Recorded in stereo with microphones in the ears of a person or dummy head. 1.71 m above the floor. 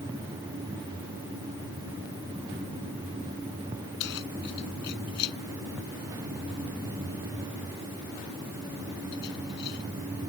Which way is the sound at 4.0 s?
70° left (ahead or behind).